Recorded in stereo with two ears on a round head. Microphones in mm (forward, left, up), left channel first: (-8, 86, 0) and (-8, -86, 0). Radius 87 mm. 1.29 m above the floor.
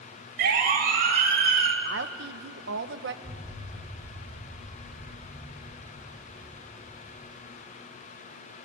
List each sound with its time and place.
0.4 s a siren: 60° right (ahead or behind), 4.5 m; by 1.8 s 50° right (ahead or behind), 3 m
1.9 s a woman speaking: 60° right (ahead or behind), 1.2 m
3.2 s an explosion: 25° left (ahead or behind), 6.5 m